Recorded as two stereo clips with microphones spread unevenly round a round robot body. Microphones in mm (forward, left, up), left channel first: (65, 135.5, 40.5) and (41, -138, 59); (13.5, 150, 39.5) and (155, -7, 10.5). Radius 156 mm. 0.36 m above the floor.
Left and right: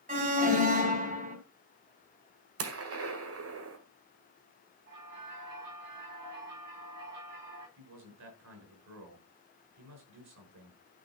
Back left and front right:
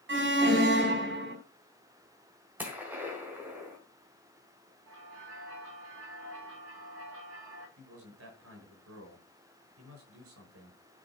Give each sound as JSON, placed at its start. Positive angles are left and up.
{"t": 0.1, "sound": "an alarm", "azimuth_deg": -35, "distance_m": 3.0}
{"t": 2.6, "sound": "a gunshot", "azimuth_deg": -125, "distance_m": 1.7}
{"t": 4.9, "sound": "a bell", "azimuth_deg": -90, "distance_m": 9.5}
{"t": 7.8, "sound": "a man speaking", "azimuth_deg": -65, "distance_m": 6.0}